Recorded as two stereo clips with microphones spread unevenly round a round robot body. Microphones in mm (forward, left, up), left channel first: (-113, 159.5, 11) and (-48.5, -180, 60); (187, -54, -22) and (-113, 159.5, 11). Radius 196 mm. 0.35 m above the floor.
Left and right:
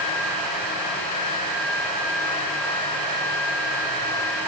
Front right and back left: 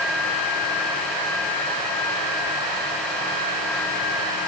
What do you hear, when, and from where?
Only background noise.